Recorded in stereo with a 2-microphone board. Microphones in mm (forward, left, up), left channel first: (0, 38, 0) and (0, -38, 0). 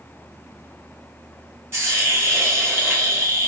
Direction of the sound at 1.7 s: 35° right (ahead or behind).